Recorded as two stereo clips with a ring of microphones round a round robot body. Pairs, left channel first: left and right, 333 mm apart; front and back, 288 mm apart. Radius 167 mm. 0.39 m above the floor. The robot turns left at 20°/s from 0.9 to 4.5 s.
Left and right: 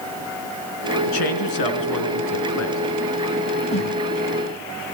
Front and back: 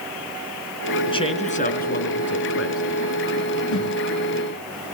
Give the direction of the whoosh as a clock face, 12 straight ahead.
11 o'clock.